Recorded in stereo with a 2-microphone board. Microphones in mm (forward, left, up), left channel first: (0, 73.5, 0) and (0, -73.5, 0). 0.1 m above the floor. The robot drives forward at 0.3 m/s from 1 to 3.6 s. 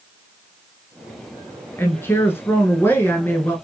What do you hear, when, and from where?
1.8 s a woman speaking: 15° left (ahead or behind), 1.1 m